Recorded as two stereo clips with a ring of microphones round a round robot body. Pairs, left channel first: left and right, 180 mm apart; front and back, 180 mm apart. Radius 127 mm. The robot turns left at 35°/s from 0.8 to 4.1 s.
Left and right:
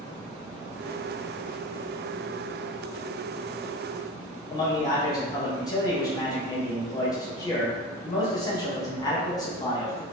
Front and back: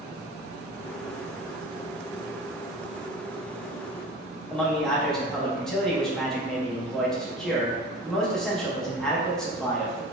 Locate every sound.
4.5 s a man speaking: 80° left, 0.6 m